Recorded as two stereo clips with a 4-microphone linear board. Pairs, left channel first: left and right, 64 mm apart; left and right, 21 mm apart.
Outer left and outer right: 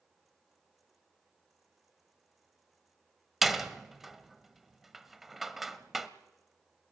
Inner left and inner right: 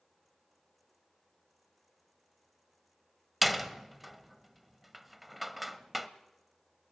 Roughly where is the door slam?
Centre.